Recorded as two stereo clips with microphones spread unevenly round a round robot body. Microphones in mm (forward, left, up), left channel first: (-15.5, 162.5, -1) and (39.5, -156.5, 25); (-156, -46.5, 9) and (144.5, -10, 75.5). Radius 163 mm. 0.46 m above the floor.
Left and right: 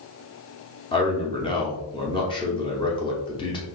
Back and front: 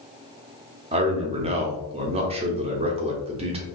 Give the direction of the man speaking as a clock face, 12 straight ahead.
9 o'clock.